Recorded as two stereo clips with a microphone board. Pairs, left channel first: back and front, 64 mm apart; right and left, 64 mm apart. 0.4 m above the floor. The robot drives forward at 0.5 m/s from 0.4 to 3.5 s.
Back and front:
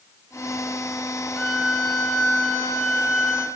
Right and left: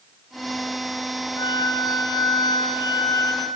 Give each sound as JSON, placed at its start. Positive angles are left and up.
{"t": 1.4, "sound": "a violin", "azimuth_deg": -95, "distance_m": 2.0}